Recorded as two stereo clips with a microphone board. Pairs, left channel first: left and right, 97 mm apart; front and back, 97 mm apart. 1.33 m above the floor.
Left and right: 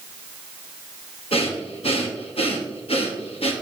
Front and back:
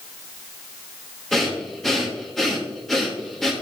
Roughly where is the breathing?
Left.